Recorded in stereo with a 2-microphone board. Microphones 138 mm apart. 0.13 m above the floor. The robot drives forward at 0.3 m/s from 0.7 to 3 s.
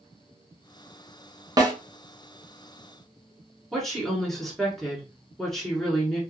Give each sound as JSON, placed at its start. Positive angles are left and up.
{"t": 1.6, "sound": "a snare drum", "side_deg": -25, "distance_m": 0.9}
{"t": 3.7, "sound": "a woman speaking", "side_deg": 5, "distance_m": 1.4}